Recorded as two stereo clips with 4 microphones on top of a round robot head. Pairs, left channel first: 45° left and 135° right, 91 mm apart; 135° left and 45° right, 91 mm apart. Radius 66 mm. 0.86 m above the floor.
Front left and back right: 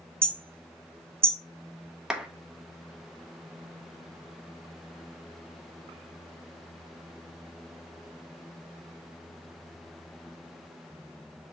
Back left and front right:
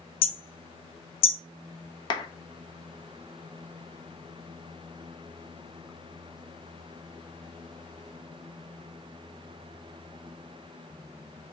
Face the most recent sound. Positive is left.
turn(degrees=145)